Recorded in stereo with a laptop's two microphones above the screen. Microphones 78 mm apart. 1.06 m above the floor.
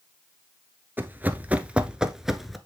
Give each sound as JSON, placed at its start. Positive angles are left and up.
{"t": 1.0, "sound": "running footsteps", "side_deg": -25, "distance_m": 1.1}